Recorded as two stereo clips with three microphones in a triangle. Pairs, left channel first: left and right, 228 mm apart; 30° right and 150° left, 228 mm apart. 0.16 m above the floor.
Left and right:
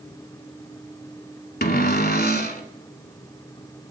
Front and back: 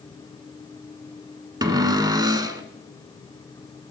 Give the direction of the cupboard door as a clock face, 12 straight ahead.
9 o'clock.